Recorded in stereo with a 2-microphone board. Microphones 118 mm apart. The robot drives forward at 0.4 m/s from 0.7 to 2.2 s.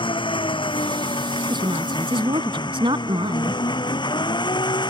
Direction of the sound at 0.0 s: 45° left (ahead or behind).